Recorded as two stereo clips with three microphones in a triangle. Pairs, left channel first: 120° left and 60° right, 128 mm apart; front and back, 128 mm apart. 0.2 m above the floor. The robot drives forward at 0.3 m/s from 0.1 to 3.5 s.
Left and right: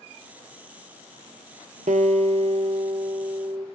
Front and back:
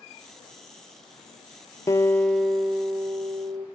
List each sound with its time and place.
1.9 s a guitar: 70° right, 0.6 m; by 3.7 s 115° right, 0.6 m